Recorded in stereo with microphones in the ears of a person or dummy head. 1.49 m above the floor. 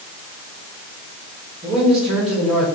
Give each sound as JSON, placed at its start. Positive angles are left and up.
{"t": 1.6, "sound": "a man speaking", "side_deg": -30, "distance_m": 5.0}